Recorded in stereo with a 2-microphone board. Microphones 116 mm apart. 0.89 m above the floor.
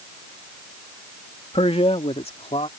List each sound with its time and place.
1.5 s a man speaking: 60° left (ahead or behind); by 2.7 s 65° left (ahead or behind)